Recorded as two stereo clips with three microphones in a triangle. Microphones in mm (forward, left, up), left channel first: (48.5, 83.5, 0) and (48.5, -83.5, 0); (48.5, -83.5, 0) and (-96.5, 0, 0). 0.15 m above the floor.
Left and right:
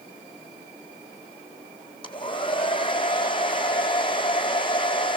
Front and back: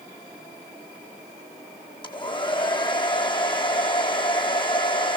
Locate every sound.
2.0 s a hair dryer: 30° left, 1.8 m